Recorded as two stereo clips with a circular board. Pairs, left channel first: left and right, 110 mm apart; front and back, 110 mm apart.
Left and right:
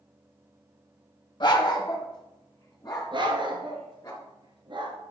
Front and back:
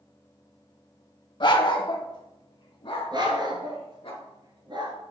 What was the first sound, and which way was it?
A dog barking, 45° left.